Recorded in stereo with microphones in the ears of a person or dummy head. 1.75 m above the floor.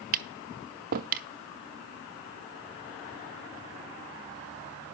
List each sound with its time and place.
0.1 s tapping: 50° right (ahead or behind), 0.7 m